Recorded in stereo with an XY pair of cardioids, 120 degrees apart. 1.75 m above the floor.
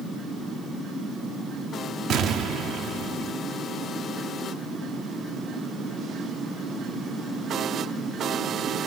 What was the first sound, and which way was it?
An explosion, 60° right.